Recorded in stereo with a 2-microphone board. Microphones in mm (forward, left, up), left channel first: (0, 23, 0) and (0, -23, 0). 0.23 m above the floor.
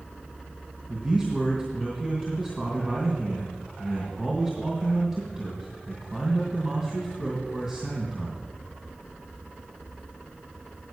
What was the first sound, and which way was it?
A man speaking, 20° right (ahead or behind).